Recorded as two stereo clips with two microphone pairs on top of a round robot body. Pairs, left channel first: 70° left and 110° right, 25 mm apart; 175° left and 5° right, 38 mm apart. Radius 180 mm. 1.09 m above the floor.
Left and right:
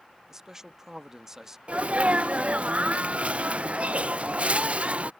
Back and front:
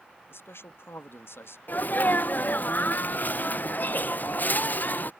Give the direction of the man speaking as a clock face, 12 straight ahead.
6 o'clock.